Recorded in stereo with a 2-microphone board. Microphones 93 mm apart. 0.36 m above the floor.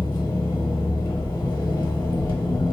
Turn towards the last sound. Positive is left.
turn(degrees=50)  # may be behind; listen again after turning